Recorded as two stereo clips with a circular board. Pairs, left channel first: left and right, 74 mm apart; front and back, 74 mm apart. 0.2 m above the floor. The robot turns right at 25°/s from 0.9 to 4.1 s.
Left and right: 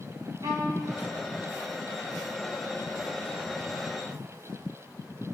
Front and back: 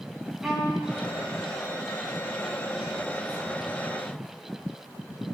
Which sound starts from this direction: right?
A violin, at 0.4 s.